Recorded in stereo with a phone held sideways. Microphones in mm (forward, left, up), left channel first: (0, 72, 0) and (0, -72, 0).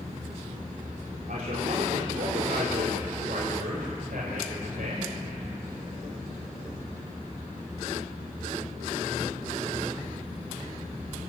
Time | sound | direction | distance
1.3 | a man speaking | 75° right (ahead or behind) | 4 m